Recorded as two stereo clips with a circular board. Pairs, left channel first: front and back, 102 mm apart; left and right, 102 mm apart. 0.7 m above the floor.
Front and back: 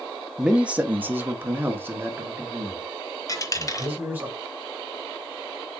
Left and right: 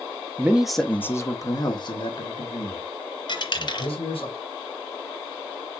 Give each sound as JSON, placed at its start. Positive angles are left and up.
{"t": 0.4, "sound": "a man speaking", "azimuth_deg": -110, "distance_m": 0.7}
{"t": 3.3, "sound": "a dropped coin", "azimuth_deg": 55, "distance_m": 1.0}